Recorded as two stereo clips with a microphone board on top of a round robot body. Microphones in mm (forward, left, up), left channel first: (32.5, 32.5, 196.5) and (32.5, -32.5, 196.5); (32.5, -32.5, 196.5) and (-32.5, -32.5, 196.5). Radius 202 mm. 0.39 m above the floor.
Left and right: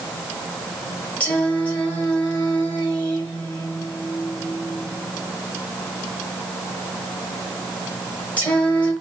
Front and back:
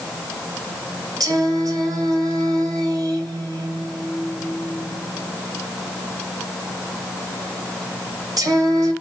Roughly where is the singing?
Behind.